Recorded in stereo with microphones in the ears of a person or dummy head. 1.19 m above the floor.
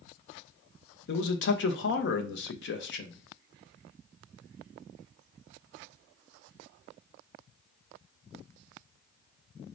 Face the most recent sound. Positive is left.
turn(degrees=60)  # may be behind; listen again after turning